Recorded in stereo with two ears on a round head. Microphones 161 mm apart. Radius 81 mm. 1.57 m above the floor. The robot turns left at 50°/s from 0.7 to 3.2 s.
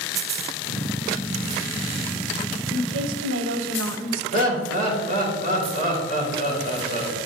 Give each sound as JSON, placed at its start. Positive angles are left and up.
{"t": 2.7, "sound": "a woman speaking", "side_deg": -65, "distance_m": 0.9}
{"t": 4.3, "sound": "laughter", "side_deg": -45, "distance_m": 3.5}